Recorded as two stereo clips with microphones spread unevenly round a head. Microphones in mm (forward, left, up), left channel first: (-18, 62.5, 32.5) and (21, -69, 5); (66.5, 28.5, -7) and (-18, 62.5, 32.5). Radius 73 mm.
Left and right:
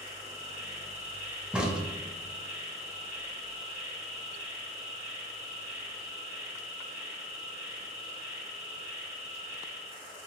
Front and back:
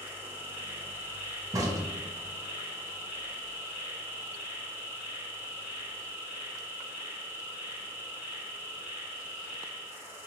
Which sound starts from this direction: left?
An insect, at 0.0 s.